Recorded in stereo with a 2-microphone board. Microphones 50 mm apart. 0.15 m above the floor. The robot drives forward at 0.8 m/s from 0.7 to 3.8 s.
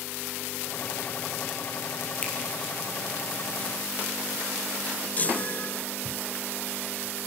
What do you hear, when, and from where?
2.2 s a finger snap: 25° left (ahead or behind), 4 m
5.2 s a chime: 30° left (ahead or behind), 0.7 m